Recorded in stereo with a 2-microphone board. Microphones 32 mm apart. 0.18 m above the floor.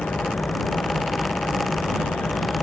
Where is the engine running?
60° left (ahead or behind).